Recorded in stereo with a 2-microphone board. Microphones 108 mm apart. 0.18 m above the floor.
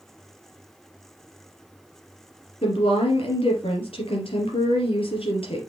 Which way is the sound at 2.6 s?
65° left (ahead or behind).